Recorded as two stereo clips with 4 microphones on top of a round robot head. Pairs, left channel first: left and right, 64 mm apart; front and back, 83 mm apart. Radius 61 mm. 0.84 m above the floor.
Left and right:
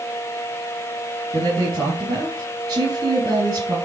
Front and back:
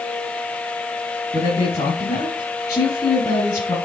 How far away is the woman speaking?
About 5.5 m.